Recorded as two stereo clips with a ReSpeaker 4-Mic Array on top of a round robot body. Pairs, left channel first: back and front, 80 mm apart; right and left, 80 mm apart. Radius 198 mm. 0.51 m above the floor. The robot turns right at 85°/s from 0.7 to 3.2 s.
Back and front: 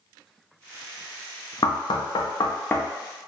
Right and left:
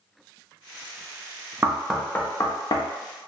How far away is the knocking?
About 0.5 m.